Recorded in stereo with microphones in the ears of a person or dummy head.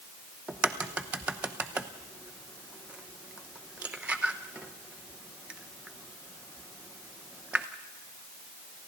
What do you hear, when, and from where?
0.5 s a crack: 10° right (ahead or behind), 0.8 m